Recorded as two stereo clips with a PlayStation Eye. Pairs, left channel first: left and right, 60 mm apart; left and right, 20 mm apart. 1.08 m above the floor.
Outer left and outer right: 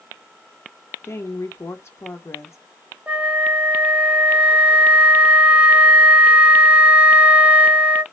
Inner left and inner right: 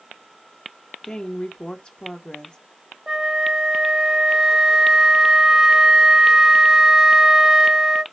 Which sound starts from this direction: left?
A woman speaking, at 1.0 s.